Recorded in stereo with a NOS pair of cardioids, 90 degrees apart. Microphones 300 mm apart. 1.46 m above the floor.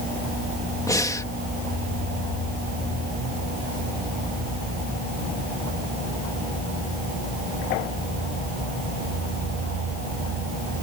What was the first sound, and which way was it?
Breathing, 10° left.